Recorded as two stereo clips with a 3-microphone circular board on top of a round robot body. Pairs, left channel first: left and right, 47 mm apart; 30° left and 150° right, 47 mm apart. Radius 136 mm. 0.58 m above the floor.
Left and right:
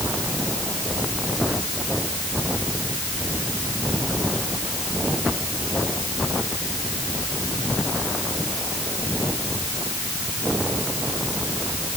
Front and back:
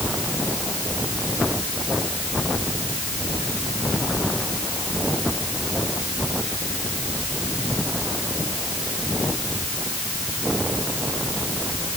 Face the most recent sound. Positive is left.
No sound to turn to.